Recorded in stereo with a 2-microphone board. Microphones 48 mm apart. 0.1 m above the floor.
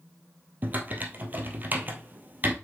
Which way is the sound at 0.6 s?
40° right (ahead or behind).